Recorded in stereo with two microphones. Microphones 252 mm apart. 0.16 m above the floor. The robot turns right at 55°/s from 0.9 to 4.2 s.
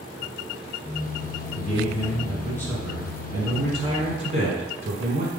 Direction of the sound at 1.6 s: 30° left (ahead or behind).